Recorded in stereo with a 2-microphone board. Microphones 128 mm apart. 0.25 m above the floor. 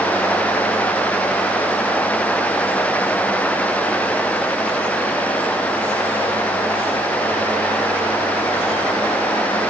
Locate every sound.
Only background noise.